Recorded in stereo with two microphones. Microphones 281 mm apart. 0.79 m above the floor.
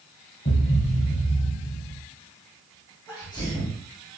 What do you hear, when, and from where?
0.5 s a thud: 40° left (ahead or behind), 1.0 m
3.1 s a sneeze: 10° left (ahead or behind), 3 m